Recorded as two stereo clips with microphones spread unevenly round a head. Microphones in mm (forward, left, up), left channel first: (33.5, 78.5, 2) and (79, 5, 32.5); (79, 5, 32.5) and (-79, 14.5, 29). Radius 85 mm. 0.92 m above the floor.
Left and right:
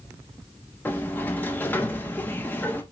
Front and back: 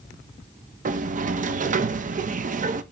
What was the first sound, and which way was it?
A sliding door, 165° left.